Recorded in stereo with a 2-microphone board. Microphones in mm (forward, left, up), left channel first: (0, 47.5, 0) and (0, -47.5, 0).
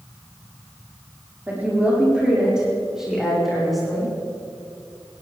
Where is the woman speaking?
20° right (ahead or behind), 6.5 m; by 4.1 s 5° left (ahead or behind), 9.5 m.